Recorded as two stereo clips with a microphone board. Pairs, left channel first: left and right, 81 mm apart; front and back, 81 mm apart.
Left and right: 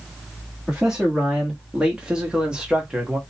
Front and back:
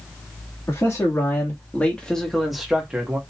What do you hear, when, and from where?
0.7 s a man speaking: 15° right, 1.4 m; by 3.2 s 145° right, 1.2 m